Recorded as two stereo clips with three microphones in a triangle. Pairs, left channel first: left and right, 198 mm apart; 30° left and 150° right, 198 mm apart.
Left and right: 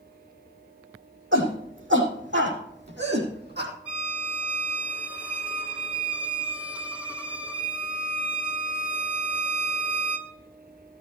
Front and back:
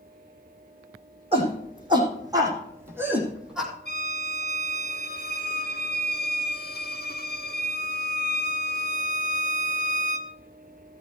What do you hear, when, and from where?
1.3 s a shout: 90° right, 6.5 m; by 3.7 s 60° right, 4.5 m
3.9 s a violin: 5° right, 1.5 m